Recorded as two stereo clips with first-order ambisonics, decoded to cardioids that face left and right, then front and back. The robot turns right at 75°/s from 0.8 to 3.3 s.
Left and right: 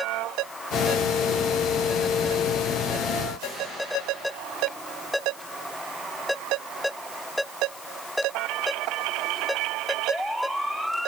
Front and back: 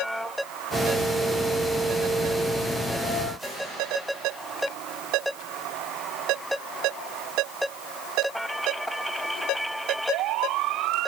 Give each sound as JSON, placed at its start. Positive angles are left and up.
{"t": 3.4, "sound": "a whoosh", "azimuth_deg": -95, "distance_m": 5.5}